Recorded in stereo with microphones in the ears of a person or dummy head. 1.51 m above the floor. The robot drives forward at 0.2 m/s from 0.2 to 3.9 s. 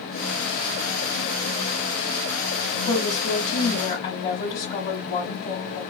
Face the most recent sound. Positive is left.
turn(degrees=40)  # may be behind; listen again after turning